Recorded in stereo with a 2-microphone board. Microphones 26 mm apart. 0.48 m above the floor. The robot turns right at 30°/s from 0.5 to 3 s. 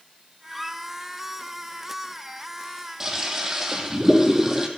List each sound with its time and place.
0.5 s a squeak: centre (ahead or behind), 0.9 m; by 0.8 s 5° left (ahead or behind), 0.9 m
3.0 s a toilet flushing: 20° right (ahead or behind), 2.5 m